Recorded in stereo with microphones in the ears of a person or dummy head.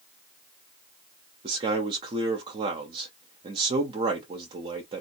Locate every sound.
1.4 s a man speaking: 30° right (ahead or behind), 0.7 m